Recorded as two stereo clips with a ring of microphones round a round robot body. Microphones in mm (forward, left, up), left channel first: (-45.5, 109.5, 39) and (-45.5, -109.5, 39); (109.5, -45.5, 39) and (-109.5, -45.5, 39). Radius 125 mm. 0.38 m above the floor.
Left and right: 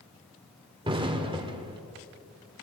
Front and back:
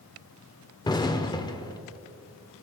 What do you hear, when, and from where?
0.8 s an explosion: 50° right, 0.9 m